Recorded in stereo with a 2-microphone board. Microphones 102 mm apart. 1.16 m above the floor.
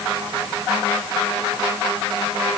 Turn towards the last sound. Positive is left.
No sound to turn to.